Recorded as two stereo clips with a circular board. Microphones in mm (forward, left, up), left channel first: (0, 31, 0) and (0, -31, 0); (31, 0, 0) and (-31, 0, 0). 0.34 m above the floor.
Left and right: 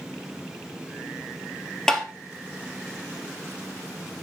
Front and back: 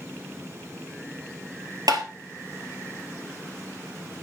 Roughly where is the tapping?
Behind.